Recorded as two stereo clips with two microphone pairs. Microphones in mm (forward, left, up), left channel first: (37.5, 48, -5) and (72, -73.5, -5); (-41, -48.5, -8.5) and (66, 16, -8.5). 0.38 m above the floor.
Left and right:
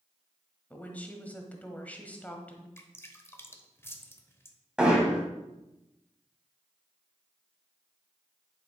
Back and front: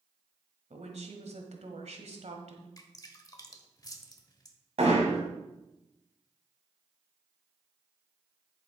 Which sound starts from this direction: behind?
Dripping, at 2.8 s.